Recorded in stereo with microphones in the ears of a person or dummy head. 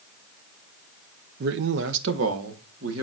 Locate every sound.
1.4 s a man speaking: 55° right (ahead or behind), 0.5 m; by 3.0 s 80° right, 1.9 m